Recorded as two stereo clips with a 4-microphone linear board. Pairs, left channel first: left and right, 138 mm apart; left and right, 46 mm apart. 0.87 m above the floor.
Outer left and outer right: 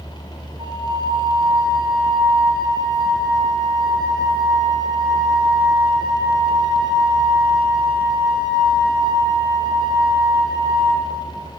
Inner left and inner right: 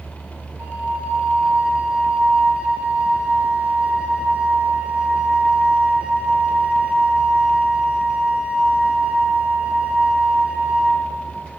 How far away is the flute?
About 1.4 m.